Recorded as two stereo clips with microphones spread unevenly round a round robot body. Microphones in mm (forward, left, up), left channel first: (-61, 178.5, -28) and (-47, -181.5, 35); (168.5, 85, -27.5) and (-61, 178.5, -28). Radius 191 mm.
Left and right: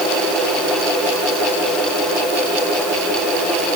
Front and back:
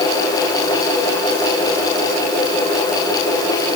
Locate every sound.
Only background noise.